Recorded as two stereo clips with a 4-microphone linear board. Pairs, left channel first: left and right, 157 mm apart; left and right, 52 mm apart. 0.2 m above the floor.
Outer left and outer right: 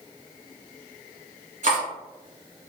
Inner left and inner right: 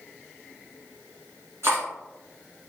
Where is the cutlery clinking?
55° right (ahead or behind), 1.5 m.